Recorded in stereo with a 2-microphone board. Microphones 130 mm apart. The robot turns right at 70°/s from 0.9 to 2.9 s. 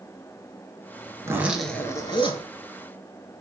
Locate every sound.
1.2 s a zipper: 30° right, 0.7 m; by 2.5 s 65° left, 0.7 m